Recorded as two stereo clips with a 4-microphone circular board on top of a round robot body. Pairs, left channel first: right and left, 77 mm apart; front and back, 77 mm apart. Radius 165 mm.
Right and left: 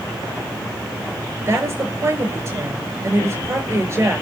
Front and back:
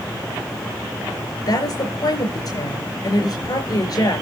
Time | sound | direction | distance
1.5 | a woman speaking | 30° left | 5 m